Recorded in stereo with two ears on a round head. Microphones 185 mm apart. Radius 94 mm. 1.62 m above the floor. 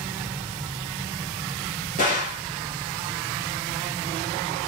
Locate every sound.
2.0 s a gunshot: 45° left (ahead or behind), 1.9 m